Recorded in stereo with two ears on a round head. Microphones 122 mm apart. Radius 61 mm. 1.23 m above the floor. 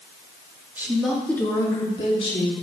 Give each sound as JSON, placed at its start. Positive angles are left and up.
{"t": 0.8, "sound": "a woman speaking", "side_deg": -15, "distance_m": 2.0}